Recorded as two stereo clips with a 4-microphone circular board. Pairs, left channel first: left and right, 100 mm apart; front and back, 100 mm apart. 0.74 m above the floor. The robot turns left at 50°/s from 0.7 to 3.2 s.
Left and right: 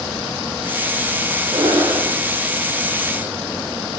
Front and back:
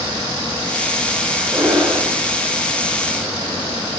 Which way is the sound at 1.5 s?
115° right.